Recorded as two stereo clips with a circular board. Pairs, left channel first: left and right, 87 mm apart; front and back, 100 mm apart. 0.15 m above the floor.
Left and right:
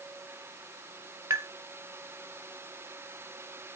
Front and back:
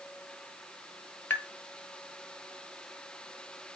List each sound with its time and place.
1.3 s tapping: 60° right, 0.9 m